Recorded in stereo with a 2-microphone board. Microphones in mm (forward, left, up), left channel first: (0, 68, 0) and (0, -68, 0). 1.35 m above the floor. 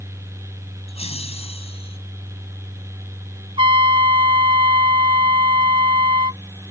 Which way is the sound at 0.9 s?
50° left (ahead or behind).